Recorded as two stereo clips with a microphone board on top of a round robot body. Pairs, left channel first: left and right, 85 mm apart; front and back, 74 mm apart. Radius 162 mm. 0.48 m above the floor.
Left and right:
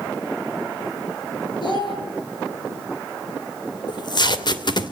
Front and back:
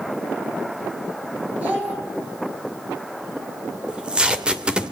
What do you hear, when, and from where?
1.6 s a child speaking: 110° left, 8 m
3.9 s tape being pulled: 105° left, 2.5 m